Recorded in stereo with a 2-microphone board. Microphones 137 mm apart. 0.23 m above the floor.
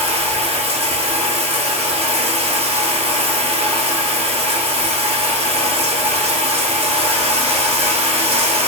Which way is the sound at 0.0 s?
50° right (ahead or behind).